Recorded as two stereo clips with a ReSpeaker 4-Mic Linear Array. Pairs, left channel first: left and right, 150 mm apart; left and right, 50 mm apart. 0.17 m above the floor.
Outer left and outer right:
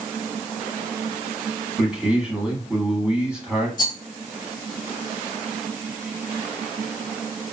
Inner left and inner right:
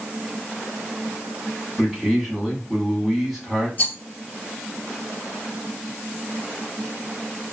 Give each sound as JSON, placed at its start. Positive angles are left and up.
{"t": 1.8, "sound": "a man speaking", "side_deg": -5, "distance_m": 1.0}
{"t": 3.8, "sound": "a rattle", "side_deg": 30, "distance_m": 0.6}